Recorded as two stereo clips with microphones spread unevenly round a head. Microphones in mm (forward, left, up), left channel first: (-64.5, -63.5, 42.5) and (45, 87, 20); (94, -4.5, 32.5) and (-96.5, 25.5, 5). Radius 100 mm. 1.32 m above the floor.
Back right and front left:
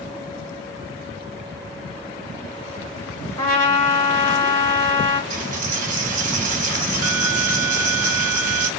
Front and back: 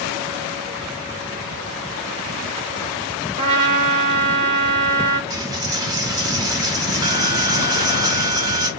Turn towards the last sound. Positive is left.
turn(degrees=95)